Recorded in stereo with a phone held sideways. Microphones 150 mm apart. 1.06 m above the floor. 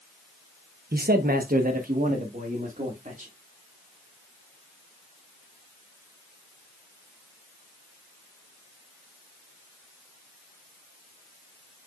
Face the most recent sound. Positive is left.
turn(degrees=-55)  # may be behind; listen again after turning